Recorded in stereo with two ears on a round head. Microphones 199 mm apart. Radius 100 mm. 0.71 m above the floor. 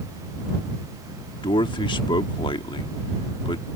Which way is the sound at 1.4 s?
20° left (ahead or behind).